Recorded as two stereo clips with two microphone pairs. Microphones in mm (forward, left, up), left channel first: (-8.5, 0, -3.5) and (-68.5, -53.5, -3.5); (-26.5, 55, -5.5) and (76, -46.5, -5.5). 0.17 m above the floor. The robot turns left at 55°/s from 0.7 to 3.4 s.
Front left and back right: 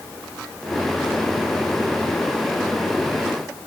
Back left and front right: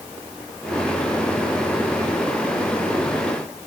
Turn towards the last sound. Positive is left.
No sound to turn to.